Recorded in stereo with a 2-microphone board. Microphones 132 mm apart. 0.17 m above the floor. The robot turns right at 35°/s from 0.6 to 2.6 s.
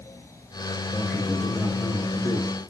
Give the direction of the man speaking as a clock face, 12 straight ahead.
12 o'clock.